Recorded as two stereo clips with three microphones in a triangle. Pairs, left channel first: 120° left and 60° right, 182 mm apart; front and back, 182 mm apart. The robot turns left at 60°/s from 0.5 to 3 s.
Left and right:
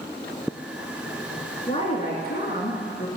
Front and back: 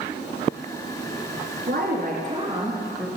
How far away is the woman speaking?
About 2.0 m.